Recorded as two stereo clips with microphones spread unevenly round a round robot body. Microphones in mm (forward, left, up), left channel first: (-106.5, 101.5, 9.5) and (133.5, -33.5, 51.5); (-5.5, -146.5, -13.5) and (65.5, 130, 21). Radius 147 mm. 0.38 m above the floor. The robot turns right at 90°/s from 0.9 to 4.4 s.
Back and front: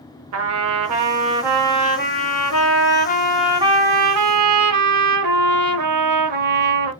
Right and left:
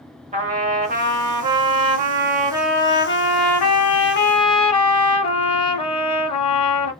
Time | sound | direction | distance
0.3 | a trumpet | 10° left | 1.0 m